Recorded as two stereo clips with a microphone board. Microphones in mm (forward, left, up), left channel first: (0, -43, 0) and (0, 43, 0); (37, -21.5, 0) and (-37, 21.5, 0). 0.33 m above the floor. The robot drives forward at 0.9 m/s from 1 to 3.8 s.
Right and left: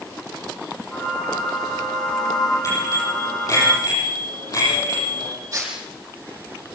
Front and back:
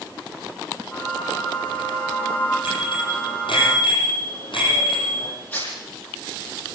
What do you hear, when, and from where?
2.6 s a bicycle bell: 40° right, 9.5 m; by 5.3 s 45° right, 8.5 m
5.5 s tearing paper: 35° left, 7 m